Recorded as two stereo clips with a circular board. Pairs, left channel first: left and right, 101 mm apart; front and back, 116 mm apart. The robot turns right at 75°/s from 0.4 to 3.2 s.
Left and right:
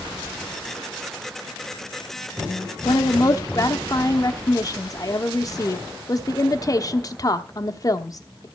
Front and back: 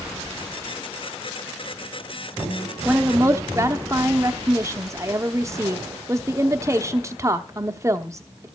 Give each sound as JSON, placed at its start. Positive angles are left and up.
{"t": 2.9, "sound": "a woman speaking", "azimuth_deg": 100, "distance_m": 0.9}